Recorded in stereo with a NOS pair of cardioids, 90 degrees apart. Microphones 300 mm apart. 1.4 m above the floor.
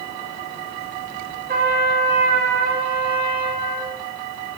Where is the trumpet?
35° right, 1.2 m.